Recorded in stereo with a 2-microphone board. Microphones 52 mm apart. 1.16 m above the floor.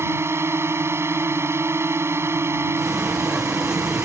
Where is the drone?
60° right (ahead or behind).